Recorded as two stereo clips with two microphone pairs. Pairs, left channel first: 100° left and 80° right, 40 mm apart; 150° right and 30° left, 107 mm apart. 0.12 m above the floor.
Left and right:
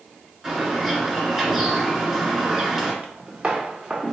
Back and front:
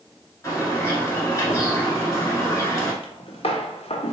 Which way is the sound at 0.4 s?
140° right.